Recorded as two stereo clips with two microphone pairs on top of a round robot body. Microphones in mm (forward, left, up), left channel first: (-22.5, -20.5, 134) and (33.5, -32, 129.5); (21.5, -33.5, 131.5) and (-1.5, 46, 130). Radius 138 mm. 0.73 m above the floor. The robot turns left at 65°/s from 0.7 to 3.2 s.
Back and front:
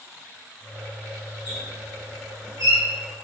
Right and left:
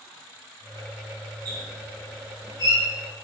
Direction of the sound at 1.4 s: 50° left.